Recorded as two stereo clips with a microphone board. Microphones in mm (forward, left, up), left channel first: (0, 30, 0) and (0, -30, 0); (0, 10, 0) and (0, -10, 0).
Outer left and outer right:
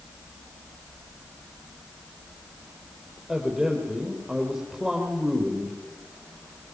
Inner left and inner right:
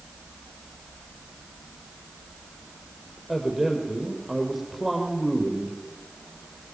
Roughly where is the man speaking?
Centre.